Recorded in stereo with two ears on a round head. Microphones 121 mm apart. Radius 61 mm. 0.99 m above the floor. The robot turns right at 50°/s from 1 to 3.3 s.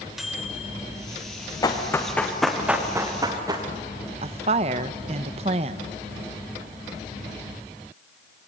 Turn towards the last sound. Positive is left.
turn(degrees=-45)  # may be behind; listen again after turning